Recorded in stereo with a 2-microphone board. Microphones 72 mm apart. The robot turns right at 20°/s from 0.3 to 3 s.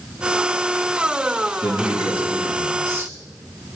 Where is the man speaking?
15° right (ahead or behind), 3 m; by 3.1 s 40° right (ahead or behind), 3 m.